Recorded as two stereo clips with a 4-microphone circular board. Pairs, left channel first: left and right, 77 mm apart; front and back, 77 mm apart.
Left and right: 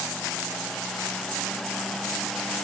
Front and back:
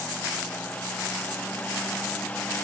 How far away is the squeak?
I don't hear a squeak.